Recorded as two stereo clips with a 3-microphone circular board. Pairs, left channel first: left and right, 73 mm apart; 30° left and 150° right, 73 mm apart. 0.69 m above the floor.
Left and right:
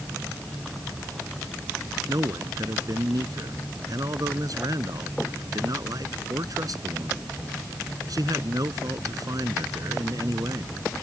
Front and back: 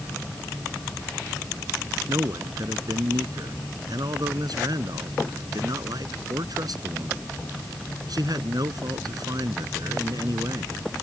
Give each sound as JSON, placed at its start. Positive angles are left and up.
{"t": 2.1, "sound": "a man speaking", "azimuth_deg": -125}